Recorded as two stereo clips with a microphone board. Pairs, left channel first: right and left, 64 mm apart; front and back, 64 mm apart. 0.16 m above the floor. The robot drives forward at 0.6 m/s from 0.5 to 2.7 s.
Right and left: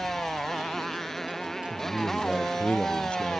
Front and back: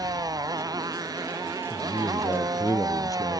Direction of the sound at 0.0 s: 175° right.